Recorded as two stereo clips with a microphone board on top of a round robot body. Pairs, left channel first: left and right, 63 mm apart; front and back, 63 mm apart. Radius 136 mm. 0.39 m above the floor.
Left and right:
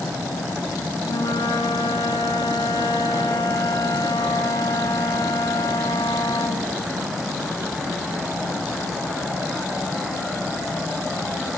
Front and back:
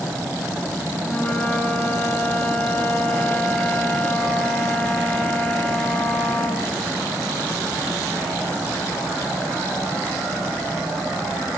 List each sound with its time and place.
1.0 s a flute: 70° left, 4.5 m